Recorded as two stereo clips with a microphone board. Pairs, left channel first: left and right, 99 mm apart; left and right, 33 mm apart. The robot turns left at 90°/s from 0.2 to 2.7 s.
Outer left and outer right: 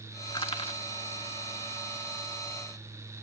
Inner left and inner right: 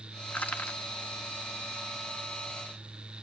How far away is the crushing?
About 1.3 m.